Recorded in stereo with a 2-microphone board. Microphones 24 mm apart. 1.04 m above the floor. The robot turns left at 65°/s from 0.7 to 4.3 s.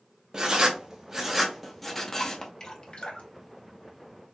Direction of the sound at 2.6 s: 20° left (ahead or behind).